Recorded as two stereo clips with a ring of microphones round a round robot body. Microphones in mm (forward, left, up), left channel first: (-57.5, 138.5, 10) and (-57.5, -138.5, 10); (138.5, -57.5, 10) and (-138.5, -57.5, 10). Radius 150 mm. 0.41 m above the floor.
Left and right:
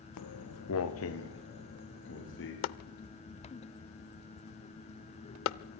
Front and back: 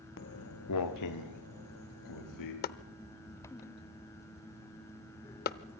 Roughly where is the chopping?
Ahead left.